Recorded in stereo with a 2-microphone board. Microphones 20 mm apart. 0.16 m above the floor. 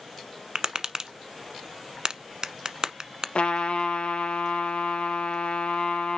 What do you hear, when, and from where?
0.6 s tapping: 40° right (ahead or behind), 1.0 m
3.4 s a trumpet: 75° left (ahead or behind), 2.5 m